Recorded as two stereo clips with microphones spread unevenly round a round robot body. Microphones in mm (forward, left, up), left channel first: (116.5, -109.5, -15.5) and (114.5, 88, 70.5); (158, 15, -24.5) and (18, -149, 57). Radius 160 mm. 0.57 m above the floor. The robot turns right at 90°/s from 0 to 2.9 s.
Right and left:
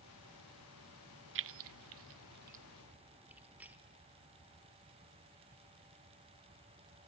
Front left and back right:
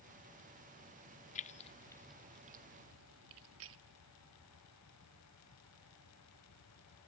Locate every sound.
1.4 s keys jangling: 55° left, 0.5 m; by 3.8 s 170° right, 0.5 m